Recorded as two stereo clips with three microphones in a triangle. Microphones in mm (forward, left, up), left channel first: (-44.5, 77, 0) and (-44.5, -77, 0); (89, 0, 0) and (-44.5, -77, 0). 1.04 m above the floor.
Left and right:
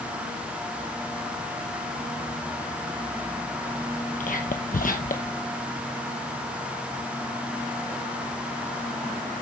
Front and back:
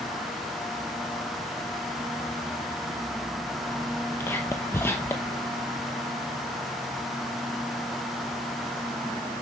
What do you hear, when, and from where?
4.2 s whispering: 100° left, 0.8 m